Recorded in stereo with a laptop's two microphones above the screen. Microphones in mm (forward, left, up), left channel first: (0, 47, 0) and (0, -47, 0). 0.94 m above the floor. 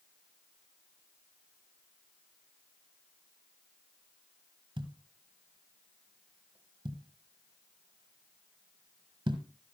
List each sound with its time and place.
4.8 s a thud: 70° right (ahead or behind), 1.5 m